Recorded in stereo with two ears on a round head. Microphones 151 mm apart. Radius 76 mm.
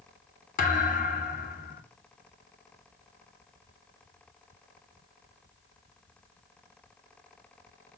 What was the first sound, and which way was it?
A thud, 50° left (ahead or behind).